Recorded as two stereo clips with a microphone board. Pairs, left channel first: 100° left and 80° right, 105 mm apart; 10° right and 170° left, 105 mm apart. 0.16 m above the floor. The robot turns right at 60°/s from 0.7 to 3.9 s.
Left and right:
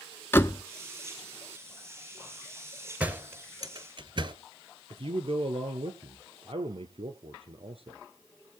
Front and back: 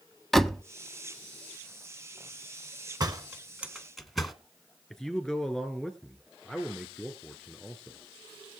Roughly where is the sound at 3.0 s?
Behind right.